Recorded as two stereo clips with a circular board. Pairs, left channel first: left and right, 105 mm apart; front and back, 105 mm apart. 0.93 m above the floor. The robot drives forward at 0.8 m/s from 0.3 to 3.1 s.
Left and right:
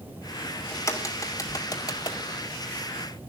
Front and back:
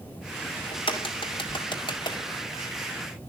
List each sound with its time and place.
0.7 s a crack: 30° left, 3 m; by 2.2 s 45° left, 2 m